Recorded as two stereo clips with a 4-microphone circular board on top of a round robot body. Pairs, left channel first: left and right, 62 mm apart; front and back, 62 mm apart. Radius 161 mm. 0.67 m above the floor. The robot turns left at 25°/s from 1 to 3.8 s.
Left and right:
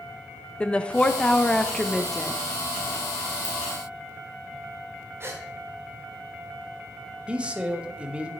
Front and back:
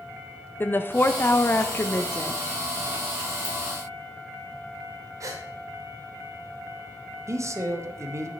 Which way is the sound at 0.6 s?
30° left.